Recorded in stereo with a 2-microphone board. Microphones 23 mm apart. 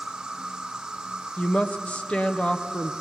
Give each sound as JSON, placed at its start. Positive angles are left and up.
{"t": 0.0, "sound": "an insect", "side_deg": -20, "distance_m": 3.0}
{"t": 1.4, "sound": "a woman speaking", "side_deg": 50, "distance_m": 0.9}